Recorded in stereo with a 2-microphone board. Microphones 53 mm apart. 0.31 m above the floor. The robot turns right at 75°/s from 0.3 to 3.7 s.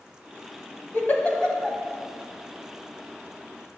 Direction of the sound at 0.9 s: 40° left (ahead or behind).